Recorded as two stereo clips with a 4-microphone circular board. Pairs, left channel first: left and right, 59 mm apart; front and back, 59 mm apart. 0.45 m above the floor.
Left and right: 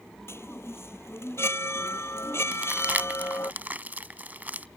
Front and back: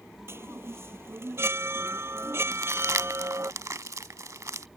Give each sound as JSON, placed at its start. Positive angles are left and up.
{"t": 0.3, "sound": "a chime", "azimuth_deg": 135}
{"t": 2.5, "sound": "crumpling", "azimuth_deg": -155}